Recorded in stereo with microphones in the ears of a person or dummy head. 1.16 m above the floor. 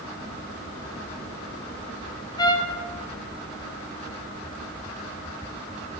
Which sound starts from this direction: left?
A trumpet, at 2.4 s.